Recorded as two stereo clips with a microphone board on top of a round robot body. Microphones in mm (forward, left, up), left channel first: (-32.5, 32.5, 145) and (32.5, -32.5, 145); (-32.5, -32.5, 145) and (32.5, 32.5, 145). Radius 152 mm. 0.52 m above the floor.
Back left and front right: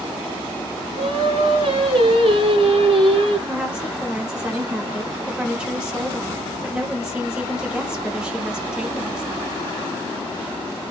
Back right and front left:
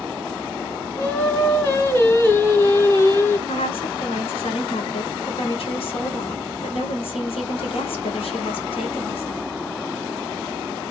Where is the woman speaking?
125° right, 2 m.